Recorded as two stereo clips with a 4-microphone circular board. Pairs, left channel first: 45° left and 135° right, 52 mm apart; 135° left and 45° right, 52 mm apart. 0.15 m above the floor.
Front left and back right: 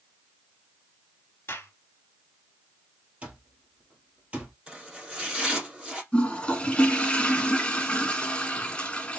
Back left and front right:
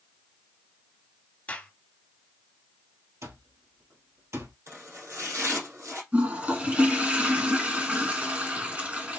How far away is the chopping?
About 3.5 m.